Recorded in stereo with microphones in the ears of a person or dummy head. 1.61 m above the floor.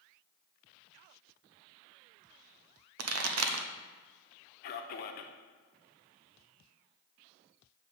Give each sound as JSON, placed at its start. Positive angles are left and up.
{"t": 3.0, "sound": "a pop", "side_deg": -75, "distance_m": 0.7}
{"t": 4.6, "sound": "a man speaking", "side_deg": 50, "distance_m": 0.9}